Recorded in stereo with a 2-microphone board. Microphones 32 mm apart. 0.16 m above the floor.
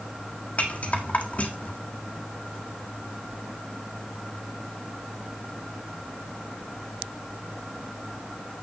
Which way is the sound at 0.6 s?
45° left (ahead or behind).